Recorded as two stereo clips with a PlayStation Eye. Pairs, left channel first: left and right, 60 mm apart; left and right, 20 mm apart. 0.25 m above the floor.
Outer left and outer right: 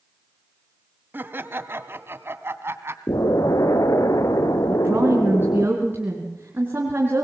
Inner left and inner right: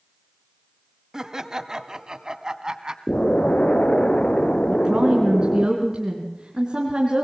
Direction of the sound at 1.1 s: 35° right (ahead or behind).